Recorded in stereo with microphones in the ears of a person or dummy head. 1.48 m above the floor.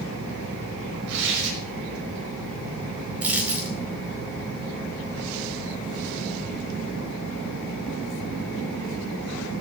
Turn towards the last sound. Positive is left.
turn(degrees=-10)  # may be behind; listen again after turning